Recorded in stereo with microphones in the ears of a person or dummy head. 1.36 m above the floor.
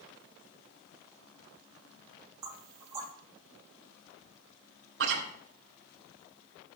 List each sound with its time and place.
2.4 s knocking: 20° right (ahead or behind), 2.5 m
5.0 s chewing: 75° right (ahead or behind), 2.5 m